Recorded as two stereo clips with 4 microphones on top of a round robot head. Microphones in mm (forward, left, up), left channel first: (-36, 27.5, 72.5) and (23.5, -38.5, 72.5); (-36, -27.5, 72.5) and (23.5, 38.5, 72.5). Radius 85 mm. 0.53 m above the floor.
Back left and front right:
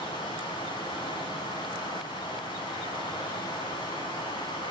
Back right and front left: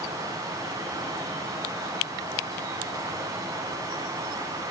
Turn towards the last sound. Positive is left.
turn(degrees=100)